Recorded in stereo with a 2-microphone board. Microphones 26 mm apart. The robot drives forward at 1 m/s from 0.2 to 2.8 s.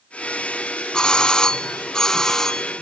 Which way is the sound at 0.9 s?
35° left (ahead or behind).